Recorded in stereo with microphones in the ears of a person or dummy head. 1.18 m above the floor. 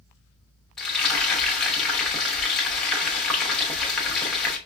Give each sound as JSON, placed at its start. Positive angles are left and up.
{"t": 0.8, "sound": "frying", "side_deg": 5, "distance_m": 1.0}